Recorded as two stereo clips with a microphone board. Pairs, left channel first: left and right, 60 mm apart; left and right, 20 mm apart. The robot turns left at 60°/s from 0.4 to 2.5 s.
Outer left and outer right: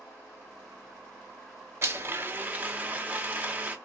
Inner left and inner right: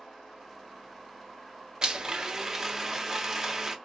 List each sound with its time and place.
1.8 s a blender: 105° right, 0.7 m; by 3.8 s 145° right, 0.7 m